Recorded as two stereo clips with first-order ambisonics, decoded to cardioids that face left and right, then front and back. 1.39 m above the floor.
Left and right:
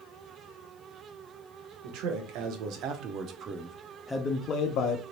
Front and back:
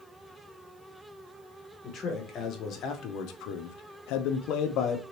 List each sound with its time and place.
1.8 s a man speaking: 65° right, 1.2 m; by 5.0 s 55° left, 0.7 m